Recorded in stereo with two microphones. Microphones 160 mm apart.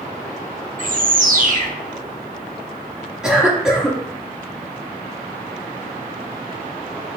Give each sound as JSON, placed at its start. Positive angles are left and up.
{"t": 0.8, "sound": "a bird", "side_deg": -55, "distance_m": 0.5}
{"t": 3.2, "sound": "a cough", "side_deg": -5, "distance_m": 1.3}